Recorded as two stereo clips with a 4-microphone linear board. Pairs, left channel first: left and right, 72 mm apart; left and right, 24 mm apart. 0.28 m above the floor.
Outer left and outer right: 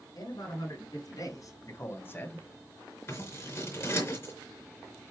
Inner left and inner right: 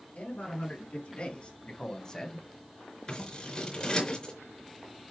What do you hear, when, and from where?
0.1 s a man speaking: 70° left (ahead or behind), 4.5 m; by 2.5 s 15° left (ahead or behind), 1.9 m
3.1 s scissors: 40° left (ahead or behind), 4 m